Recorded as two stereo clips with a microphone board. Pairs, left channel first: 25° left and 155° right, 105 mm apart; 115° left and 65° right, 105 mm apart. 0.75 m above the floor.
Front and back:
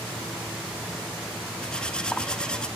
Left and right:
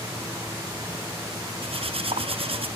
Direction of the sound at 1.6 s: 60° right.